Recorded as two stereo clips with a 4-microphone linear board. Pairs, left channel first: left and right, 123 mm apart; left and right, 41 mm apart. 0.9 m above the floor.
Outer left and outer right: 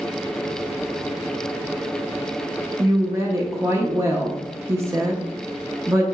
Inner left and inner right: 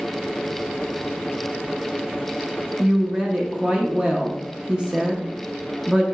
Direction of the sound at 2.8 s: 20° right (ahead or behind).